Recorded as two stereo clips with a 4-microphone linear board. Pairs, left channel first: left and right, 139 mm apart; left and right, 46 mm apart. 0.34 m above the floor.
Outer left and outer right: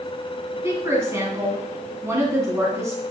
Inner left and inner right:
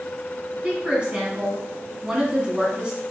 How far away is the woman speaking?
About 3 m.